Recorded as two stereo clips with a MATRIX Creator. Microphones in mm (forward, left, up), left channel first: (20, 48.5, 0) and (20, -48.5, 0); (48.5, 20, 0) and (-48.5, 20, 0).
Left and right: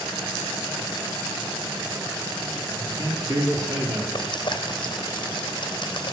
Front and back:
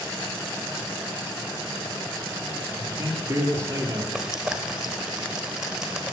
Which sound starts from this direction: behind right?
A man speaking, at 2.8 s.